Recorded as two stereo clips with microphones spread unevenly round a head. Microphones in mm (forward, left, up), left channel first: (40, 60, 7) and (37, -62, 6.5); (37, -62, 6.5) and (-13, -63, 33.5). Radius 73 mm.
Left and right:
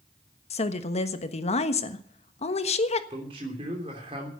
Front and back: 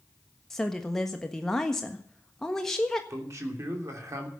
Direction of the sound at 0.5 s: 65° left.